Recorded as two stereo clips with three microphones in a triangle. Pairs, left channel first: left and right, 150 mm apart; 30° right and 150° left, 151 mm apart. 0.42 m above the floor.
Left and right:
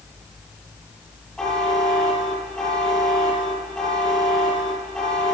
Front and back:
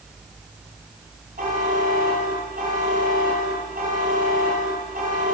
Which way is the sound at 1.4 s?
175° left.